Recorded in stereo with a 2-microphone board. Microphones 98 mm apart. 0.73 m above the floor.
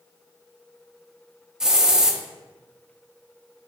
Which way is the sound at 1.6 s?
5° right (ahead or behind).